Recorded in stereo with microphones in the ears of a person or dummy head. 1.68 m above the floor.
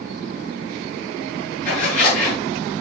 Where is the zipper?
45° left (ahead or behind), 6.5 m.